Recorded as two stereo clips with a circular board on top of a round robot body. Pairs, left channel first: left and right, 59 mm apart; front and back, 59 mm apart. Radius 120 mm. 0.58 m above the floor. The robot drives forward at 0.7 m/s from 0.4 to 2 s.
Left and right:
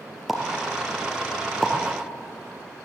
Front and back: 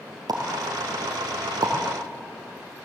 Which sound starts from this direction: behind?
A pop, at 0.3 s.